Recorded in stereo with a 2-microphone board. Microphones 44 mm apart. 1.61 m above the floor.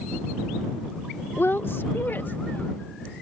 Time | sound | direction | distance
1.4 | a woman speaking | 60° left (ahead or behind) | ?